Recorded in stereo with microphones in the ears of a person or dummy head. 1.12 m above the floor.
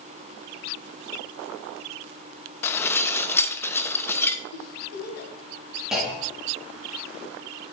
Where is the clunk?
5° right (ahead or behind), 1.6 m.